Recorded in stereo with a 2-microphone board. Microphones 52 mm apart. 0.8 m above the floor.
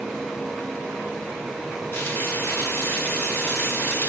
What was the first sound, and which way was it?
Frying, 55° left (ahead or behind).